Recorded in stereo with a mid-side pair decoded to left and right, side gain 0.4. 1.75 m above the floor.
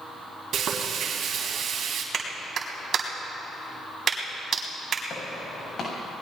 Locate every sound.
0.5 s frying: 70° right, 3.5 m
2.1 s a clap: 55° right, 4 m
5.1 s footsteps: 60° left, 6.5 m